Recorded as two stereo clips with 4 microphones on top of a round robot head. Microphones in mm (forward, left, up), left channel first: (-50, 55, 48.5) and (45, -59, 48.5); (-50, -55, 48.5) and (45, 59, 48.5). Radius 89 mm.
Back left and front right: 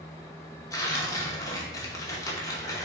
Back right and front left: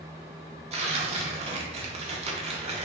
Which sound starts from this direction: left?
Tearing paper, at 0.7 s.